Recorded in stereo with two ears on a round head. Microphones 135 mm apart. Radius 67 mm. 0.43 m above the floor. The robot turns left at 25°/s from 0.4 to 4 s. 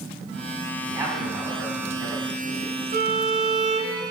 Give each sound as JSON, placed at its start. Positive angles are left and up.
{"t": 0.8, "sound": "a man speaking", "azimuth_deg": -150, "distance_m": 3.0}
{"t": 2.9, "sound": "a violin", "side_deg": -65, "distance_m": 1.2}